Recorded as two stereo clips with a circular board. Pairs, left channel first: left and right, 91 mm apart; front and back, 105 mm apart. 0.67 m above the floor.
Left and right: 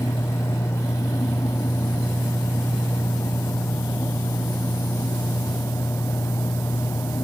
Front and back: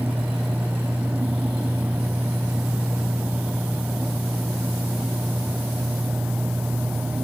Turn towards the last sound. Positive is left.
No sound to turn to.